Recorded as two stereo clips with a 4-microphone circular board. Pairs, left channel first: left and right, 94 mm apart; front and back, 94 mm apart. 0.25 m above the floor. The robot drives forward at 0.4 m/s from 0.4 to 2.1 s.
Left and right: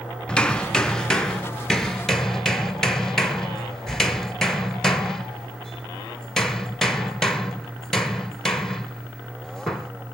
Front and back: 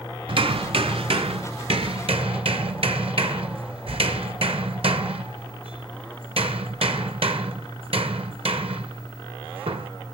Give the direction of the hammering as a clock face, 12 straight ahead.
6 o'clock.